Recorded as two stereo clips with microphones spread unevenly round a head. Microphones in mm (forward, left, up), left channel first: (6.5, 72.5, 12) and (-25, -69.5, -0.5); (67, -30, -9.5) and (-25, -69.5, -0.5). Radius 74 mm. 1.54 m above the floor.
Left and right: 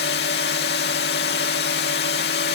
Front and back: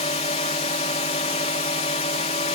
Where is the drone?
65° left.